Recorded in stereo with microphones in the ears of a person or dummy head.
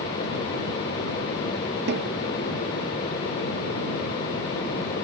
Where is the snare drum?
60° right (ahead or behind).